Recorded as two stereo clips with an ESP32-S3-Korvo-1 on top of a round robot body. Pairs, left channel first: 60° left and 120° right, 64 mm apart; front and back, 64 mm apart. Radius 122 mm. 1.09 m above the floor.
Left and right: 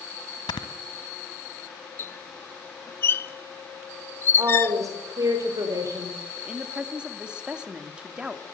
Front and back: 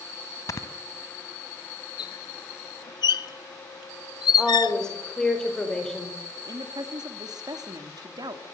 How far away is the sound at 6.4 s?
About 2.5 m.